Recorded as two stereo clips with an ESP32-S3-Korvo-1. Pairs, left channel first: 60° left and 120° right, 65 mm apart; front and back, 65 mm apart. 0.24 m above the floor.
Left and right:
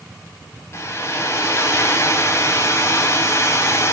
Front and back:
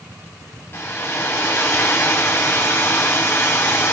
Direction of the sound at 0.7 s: 35° left.